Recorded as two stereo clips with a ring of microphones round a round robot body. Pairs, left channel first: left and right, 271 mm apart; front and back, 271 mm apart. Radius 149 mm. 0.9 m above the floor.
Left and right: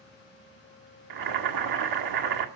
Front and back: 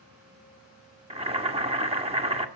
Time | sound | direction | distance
1.1 | boiling | 110° right | 1.7 m